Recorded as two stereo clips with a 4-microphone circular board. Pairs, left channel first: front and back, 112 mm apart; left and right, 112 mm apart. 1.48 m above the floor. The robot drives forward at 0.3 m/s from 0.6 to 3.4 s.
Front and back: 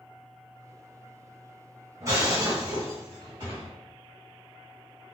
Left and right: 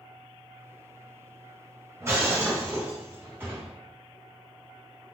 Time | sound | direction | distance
2.0 | breaking glass | 140° right | 1.5 m